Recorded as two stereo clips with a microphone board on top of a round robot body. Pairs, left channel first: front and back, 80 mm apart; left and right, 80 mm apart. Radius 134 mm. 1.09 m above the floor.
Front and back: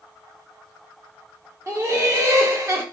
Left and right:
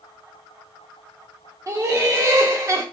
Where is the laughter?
135° right, 1.2 m.